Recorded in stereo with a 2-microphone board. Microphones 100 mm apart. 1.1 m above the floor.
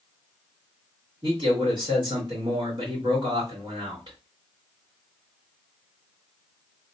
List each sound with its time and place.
1.2 s a man speaking: 50° right (ahead or behind), 1.8 m